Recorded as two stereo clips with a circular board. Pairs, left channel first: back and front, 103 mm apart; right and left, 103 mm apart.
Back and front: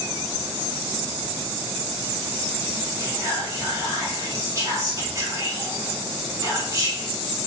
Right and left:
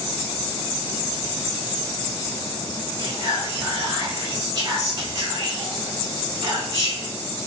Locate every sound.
3.0 s whispering: 45° left, 1.8 m